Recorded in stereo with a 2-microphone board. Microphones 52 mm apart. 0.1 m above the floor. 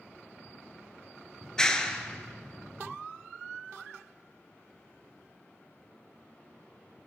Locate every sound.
1.4 s a clap: 15° left (ahead or behind), 1.0 m